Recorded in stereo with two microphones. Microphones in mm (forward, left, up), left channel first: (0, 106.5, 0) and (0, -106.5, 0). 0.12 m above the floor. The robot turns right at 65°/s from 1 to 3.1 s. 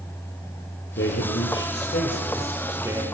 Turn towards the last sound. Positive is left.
turn(degrees=-150)